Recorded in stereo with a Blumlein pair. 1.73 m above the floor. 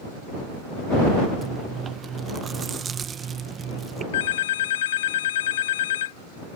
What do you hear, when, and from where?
1.4 s chewing: 20° right
4.1 s a phone ringing: 60° left